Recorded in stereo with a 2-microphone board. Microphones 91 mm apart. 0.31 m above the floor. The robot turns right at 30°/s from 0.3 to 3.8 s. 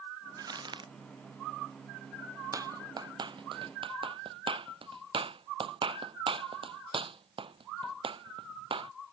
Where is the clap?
40° right (ahead or behind); by 8.9 s 75° right (ahead or behind).